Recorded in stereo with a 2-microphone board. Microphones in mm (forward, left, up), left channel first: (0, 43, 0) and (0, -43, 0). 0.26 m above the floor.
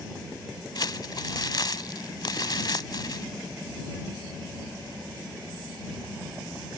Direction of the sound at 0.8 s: 55° left (ahead or behind).